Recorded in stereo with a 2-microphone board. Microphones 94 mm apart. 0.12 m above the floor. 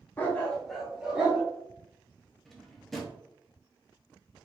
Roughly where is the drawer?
Centre.